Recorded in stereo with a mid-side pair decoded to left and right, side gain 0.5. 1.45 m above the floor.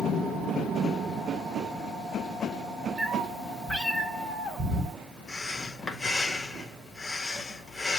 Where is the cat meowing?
25° right, 2.5 m.